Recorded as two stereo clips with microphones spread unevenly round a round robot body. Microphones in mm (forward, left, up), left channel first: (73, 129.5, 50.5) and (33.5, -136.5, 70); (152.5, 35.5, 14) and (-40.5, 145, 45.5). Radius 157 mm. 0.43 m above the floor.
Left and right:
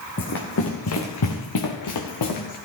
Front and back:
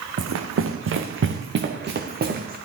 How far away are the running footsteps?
About 1.8 m.